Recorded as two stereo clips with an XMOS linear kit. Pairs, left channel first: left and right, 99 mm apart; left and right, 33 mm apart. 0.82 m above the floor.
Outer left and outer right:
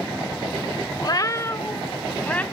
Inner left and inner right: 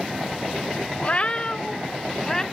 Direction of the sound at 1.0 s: 45° left (ahead or behind).